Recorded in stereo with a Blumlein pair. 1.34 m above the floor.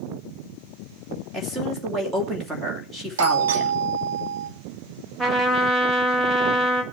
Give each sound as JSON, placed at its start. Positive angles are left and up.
{"t": 1.3, "sound": "a woman speaking", "azimuth_deg": -5, "distance_m": 3.0}
{"t": 3.2, "sound": "a doorbell", "azimuth_deg": -65, "distance_m": 1.5}
{"t": 5.2, "sound": "a trumpet", "azimuth_deg": -10, "distance_m": 1.9}